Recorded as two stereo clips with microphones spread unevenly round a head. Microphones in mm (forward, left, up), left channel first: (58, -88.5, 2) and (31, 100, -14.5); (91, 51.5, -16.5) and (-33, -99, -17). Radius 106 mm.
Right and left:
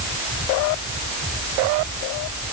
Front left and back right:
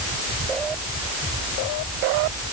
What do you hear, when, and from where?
Only background noise.